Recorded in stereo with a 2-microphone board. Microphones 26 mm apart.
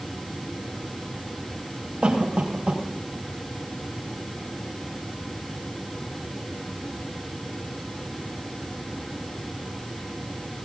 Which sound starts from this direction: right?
A cough, at 2.0 s.